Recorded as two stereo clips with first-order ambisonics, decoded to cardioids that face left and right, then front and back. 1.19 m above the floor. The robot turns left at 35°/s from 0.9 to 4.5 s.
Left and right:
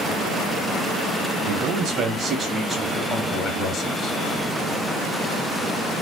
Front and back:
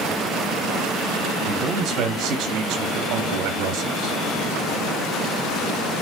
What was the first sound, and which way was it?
A man speaking, 125° right.